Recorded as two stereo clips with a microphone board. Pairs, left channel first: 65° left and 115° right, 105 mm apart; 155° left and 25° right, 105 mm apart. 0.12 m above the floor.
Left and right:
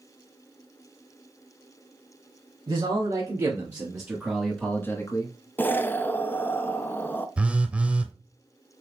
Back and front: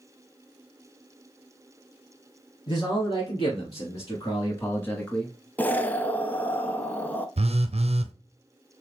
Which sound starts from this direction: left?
An explosion, at 5.6 s.